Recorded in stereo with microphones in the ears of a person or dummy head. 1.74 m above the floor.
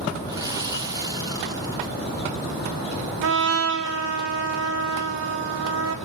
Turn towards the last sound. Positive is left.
turn(degrees=-70)  # may be behind; listen again after turning